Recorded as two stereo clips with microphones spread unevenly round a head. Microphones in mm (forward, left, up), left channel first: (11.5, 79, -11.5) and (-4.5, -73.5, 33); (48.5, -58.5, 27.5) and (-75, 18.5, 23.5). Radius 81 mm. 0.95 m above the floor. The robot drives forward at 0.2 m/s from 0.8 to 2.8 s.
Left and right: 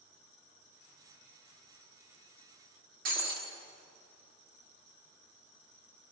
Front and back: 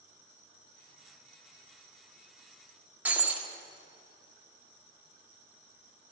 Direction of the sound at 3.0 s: 130° right.